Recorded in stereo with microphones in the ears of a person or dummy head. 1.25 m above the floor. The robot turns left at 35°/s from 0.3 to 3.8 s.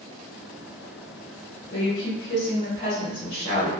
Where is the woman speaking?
90° left, 1.4 m; by 3.7 s 20° left, 1.4 m.